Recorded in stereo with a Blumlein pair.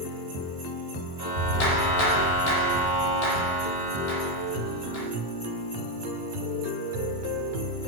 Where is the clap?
50° left, 1.4 m.